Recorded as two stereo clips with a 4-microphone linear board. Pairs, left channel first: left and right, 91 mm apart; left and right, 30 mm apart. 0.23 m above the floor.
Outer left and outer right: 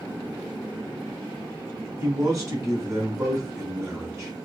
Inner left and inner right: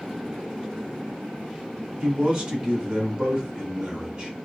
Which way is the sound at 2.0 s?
35° right (ahead or behind).